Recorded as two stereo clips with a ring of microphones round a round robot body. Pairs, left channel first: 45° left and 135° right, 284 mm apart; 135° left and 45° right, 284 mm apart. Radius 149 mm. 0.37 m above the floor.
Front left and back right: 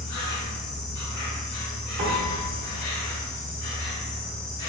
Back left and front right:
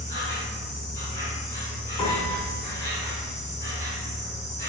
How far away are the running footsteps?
No running footsteps in this recording.